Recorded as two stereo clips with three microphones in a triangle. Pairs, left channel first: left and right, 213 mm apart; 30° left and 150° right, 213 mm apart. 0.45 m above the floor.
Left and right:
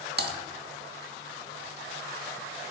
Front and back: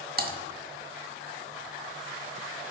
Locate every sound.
0.2 s typing on a keyboard: 115° right, 0.8 m